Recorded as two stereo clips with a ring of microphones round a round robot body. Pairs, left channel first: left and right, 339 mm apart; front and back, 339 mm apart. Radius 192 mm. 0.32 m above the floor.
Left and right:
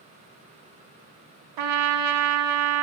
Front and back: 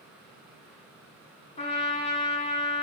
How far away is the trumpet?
About 0.7 m.